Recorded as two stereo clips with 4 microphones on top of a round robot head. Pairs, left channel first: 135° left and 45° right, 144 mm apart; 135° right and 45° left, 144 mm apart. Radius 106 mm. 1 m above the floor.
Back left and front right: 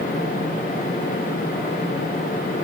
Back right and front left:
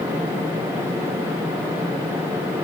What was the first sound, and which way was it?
Only background noise.